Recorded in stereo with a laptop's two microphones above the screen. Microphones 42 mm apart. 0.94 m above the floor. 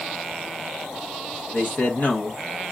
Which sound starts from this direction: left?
A man speaking, at 1.5 s.